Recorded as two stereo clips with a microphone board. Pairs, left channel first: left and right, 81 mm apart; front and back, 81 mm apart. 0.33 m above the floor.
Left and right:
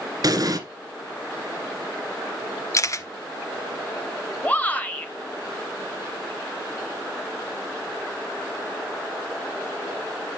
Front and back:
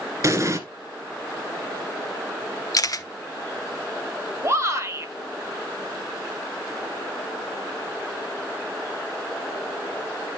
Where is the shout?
150° left, 1.9 m.